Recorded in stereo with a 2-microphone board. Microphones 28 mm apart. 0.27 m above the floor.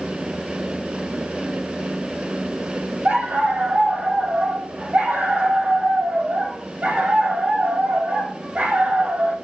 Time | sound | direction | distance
3.0 | a dog barking | 65° right (ahead or behind) | 3.5 m